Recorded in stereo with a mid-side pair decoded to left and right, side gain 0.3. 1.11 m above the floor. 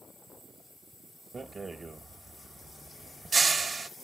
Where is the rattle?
50° right, 1.4 m.